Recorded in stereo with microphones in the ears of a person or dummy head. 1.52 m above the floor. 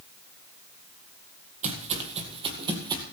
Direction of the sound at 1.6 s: 40° right (ahead or behind).